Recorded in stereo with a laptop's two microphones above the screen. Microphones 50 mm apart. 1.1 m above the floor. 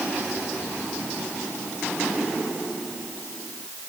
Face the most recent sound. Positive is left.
No sound to turn to.